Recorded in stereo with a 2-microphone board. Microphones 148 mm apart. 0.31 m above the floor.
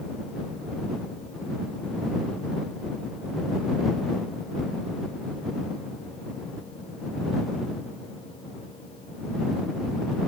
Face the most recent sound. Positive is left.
No sound to turn to.